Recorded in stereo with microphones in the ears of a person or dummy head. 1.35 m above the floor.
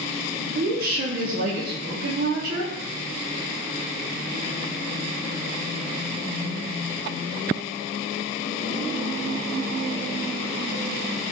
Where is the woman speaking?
55° right (ahead or behind), 0.5 m.